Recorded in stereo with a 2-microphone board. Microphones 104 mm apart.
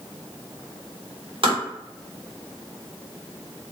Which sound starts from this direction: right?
Tapping, at 1.4 s.